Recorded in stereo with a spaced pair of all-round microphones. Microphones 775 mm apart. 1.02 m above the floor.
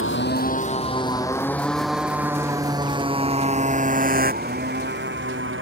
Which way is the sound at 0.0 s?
15° left (ahead or behind).